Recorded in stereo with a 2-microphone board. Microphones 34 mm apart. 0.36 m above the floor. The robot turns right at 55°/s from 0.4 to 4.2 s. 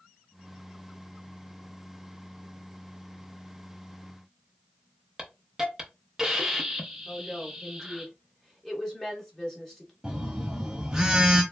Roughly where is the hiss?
Centre.